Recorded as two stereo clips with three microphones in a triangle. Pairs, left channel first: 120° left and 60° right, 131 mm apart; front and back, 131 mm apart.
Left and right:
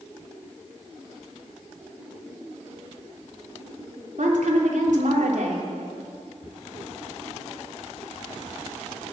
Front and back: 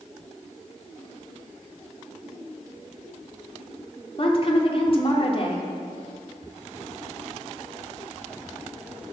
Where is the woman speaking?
45° right, 3 m.